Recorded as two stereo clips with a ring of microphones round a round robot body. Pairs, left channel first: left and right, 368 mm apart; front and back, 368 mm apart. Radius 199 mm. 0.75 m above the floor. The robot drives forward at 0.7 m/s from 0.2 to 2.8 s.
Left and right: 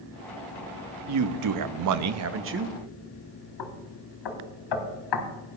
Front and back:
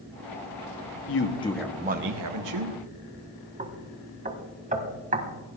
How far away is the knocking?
About 1.8 m.